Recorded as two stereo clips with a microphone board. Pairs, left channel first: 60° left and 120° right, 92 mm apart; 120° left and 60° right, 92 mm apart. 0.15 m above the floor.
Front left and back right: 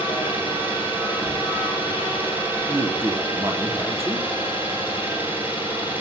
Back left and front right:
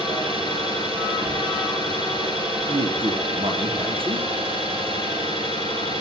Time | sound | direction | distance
0.0 | an engine running | 50° right | 8.5 m
2.7 | a man speaking | 60° right | 4.5 m